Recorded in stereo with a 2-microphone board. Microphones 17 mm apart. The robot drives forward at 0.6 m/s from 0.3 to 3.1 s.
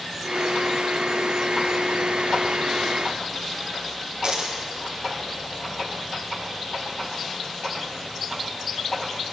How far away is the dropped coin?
About 2 m.